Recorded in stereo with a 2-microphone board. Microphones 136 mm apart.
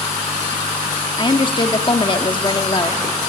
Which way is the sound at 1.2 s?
35° left (ahead or behind).